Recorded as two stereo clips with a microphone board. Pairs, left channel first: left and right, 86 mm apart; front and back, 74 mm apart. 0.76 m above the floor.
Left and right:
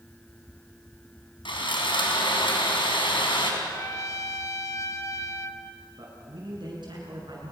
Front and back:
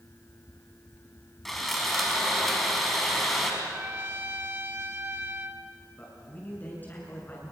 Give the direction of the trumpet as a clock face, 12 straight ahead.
8 o'clock.